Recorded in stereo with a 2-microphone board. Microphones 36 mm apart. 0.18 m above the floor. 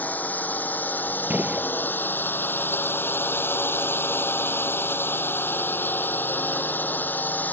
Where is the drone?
50° left (ahead or behind).